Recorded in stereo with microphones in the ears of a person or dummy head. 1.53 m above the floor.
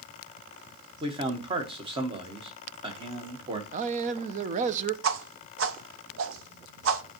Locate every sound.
1.0 s a man speaking: 20° right (ahead or behind), 1.4 m
3.7 s a man speaking: 45° right (ahead or behind), 0.8 m
5.0 s a whoosh: 80° right, 0.8 m